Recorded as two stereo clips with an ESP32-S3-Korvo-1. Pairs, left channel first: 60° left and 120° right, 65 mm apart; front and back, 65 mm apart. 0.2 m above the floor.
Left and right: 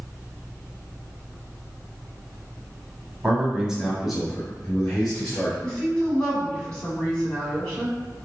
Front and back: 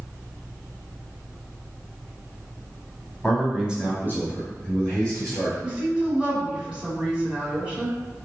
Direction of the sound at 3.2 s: 70° right.